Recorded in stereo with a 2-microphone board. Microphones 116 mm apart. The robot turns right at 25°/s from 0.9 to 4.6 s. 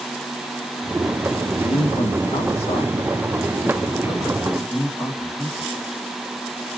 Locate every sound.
1.7 s a man speaking: 60° left (ahead or behind), 1.9 m; by 5.8 s 25° left (ahead or behind), 1.9 m